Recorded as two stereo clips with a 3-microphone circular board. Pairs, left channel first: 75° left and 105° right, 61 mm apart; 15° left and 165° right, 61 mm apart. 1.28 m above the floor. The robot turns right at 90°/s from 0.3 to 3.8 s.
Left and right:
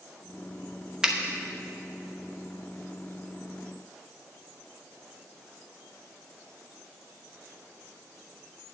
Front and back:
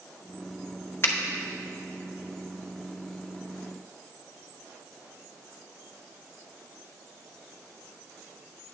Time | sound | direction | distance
1.0 | a finger snap | 30° right | 0.9 m